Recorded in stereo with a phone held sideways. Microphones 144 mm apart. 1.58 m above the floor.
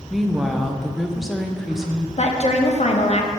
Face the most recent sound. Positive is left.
turn(degrees=50)  # may be behind; listen again after turning